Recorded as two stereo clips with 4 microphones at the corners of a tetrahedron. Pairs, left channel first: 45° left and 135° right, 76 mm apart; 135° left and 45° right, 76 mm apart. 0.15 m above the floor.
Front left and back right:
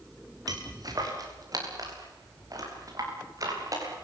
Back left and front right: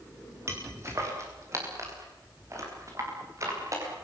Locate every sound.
0.5 s footsteps: 100° right, 8 m; by 3.9 s 95° right, 10.5 m